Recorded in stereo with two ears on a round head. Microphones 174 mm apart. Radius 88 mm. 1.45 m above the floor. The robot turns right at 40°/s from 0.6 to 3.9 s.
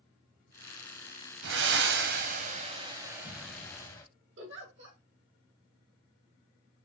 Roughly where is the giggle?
Right.